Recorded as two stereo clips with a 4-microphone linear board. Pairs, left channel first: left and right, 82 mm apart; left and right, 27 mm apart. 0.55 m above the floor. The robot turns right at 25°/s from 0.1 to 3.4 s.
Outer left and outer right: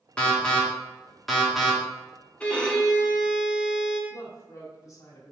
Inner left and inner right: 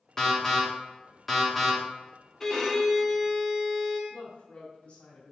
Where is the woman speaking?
45° left (ahead or behind), 1.6 m.